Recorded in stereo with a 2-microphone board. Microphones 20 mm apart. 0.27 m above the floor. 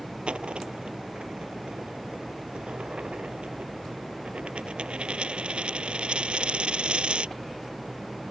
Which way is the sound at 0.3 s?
80° right.